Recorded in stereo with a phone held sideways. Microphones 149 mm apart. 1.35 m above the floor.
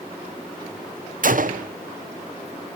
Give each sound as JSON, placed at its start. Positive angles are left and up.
{"t": 1.2, "sound": "a gunshot", "side_deg": -65, "distance_m": 0.6}